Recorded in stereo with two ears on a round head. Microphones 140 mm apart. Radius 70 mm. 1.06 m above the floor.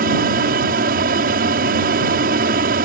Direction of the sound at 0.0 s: 60° right (ahead or behind).